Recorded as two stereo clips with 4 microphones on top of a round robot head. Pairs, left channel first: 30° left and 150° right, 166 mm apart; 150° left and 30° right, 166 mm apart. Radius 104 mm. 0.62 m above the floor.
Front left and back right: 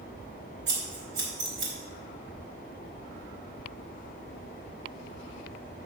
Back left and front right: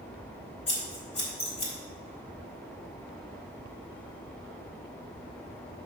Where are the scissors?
155° right, 4 m.